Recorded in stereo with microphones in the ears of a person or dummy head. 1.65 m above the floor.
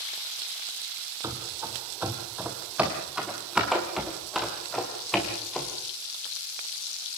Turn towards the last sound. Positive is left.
turn(degrees=10)  # may be behind; listen again after turning